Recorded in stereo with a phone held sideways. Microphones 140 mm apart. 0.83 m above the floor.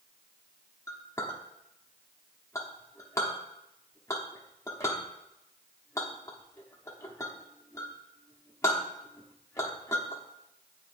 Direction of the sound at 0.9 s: 20° left (ahead or behind).